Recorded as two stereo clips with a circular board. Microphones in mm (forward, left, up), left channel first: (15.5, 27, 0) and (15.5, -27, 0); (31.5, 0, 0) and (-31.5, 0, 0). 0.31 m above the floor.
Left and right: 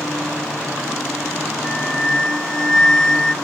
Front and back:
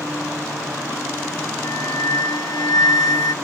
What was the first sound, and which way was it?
A flute, 10° left.